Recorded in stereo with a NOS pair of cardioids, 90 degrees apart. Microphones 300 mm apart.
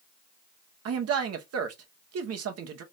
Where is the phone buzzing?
No phone buzzing in this recording.